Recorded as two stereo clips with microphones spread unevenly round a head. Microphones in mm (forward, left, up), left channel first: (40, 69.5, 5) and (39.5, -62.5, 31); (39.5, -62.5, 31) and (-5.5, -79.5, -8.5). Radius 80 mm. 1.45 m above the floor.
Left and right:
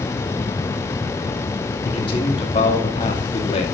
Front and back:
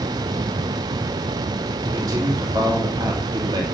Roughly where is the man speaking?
Behind left.